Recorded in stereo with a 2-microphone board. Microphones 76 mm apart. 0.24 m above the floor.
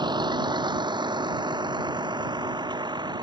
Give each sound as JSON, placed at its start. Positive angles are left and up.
{"t": 0.0, "sound": "a vehicle", "side_deg": -80}